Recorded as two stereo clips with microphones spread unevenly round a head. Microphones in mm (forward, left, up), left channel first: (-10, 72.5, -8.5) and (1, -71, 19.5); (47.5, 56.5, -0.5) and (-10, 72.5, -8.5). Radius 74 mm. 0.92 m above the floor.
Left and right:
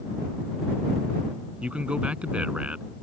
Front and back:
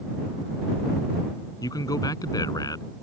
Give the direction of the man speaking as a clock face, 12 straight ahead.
12 o'clock.